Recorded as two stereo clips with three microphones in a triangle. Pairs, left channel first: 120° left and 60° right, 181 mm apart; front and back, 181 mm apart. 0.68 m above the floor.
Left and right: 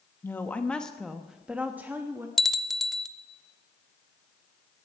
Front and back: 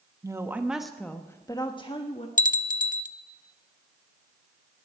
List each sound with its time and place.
0.2 s a woman speaking: 165° left, 1.0 m; by 2.3 s 5° left, 1.2 m
2.4 s a bell: 30° left, 0.7 m